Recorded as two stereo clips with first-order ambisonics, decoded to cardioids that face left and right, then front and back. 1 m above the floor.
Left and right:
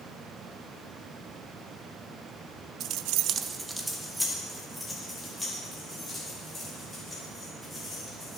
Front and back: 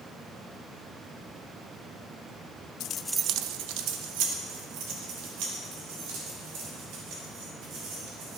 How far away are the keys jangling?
About 0.6 m.